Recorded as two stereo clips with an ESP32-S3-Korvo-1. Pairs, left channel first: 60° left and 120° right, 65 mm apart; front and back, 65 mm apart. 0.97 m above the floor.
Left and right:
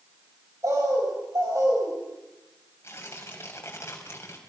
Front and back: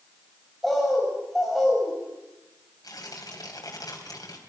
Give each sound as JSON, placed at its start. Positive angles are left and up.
{"t": 0.6, "sound": "a bird", "azimuth_deg": -90, "distance_m": 7.0}
{"t": 2.8, "sound": "tearing paper", "azimuth_deg": 10, "distance_m": 3.5}